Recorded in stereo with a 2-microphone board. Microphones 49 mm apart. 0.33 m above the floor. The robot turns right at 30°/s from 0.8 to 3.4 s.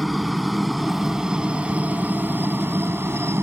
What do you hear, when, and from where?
0.0 s a helicopter: centre (ahead or behind); by 3.4 s 60° right (ahead or behind)